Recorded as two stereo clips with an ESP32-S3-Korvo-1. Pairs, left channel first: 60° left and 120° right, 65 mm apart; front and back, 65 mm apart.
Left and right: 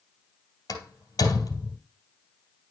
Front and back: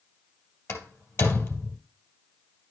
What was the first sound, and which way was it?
A door slam, 45° left.